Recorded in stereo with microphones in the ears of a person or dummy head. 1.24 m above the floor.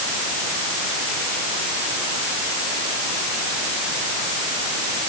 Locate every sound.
Only background noise.